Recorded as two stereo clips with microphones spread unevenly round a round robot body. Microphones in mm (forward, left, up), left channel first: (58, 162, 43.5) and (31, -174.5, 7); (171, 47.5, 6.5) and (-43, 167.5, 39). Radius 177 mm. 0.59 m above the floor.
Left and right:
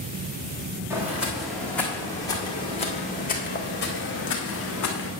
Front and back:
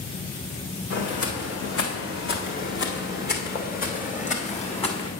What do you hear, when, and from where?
0.9 s footsteps: 10° right, 2.5 m; by 5.1 s 40° left, 2.5 m